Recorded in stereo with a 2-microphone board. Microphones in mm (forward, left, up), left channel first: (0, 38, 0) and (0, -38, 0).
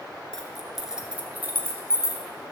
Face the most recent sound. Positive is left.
turn(degrees=-40)  # may be behind; listen again after turning